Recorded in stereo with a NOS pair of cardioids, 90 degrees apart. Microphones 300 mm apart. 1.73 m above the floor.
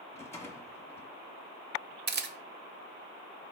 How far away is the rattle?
About 1.1 m.